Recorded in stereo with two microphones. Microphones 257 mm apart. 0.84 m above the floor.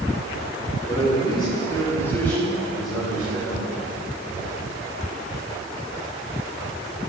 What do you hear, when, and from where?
0.9 s a man speaking: 25° left (ahead or behind), 3 m; by 3.7 s 5° right (ahead or behind), 5.5 m